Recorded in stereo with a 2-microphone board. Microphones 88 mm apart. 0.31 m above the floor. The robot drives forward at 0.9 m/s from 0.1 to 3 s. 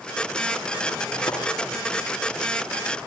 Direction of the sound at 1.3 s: 70° left (ahead or behind).